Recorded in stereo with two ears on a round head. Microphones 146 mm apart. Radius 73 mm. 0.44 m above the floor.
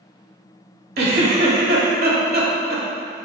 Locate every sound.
1.0 s a giggle: 65° right (ahead or behind), 1.4 m